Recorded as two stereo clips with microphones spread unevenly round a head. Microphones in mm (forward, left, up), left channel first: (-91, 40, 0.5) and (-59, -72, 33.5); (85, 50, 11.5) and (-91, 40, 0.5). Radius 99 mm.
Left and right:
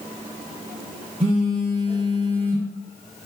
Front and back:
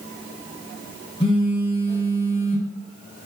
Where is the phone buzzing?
60° right, 1.0 m.